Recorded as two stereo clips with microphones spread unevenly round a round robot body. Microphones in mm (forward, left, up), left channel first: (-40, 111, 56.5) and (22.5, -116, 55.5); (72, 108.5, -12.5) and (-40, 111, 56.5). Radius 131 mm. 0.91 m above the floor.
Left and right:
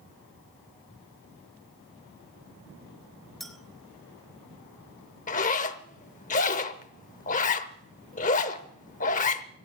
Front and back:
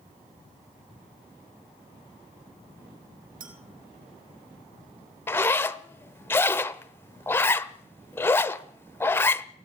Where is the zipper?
120° left, 0.6 m.